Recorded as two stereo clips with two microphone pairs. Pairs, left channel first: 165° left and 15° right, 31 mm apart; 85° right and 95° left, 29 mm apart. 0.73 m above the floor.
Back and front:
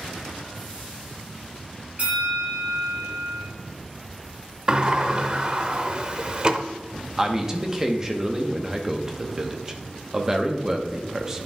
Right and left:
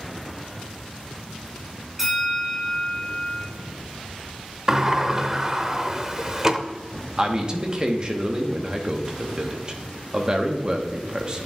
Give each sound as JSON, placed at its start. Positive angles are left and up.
{"t": 2.0, "sound": "a bell", "azimuth_deg": 20, "distance_m": 3.0}
{"t": 4.7, "sound": "a sliding door", "azimuth_deg": 35, "distance_m": 0.5}
{"t": 7.2, "sound": "a man speaking", "azimuth_deg": 50, "distance_m": 0.9}